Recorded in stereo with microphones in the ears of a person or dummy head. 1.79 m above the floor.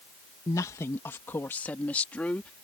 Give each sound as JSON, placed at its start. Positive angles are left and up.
{"t": 0.5, "sound": "a woman speaking", "side_deg": 20}